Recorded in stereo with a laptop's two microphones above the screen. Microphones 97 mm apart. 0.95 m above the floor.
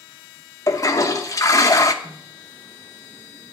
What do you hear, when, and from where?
0.7 s a toilet flushing: 35° left (ahead or behind), 0.8 m
2.0 s a snare drum: 75° right (ahead or behind), 2.5 m